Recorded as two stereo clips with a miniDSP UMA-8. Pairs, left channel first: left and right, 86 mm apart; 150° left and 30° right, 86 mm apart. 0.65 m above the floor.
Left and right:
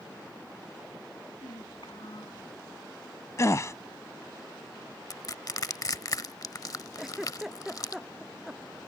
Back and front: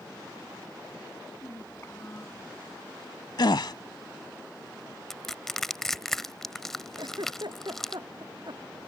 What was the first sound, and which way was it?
A child speaking, 95° left.